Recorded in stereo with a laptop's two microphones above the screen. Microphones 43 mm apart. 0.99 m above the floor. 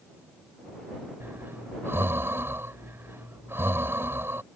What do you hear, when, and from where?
1.2 s breathing: 70° right (ahead or behind)